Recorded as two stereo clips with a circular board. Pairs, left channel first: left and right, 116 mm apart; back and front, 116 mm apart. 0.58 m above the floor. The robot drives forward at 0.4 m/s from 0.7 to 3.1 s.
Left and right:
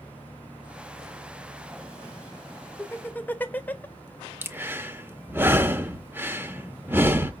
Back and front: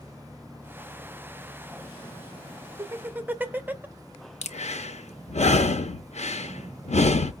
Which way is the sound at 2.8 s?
30° left.